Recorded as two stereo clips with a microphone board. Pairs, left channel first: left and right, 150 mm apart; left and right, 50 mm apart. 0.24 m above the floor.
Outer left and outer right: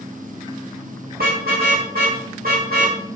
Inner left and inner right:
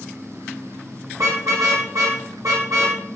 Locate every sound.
1.1 s a car horn: 85° right, 9.5 m